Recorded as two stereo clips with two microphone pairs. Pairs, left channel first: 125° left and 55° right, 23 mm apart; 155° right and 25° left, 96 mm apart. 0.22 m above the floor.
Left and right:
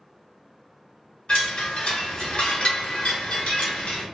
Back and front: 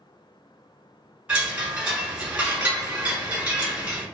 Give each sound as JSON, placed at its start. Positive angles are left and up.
{"t": 1.3, "sound": "a chime", "azimuth_deg": 100, "distance_m": 1.5}